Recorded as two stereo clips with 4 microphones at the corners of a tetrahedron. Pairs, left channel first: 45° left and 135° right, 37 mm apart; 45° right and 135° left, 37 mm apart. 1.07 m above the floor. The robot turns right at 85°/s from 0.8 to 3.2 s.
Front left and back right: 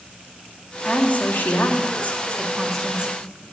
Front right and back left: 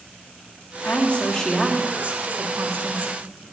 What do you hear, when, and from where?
0.8 s a woman speaking: 20° right, 1.6 m; by 3.1 s straight behind, 1.6 m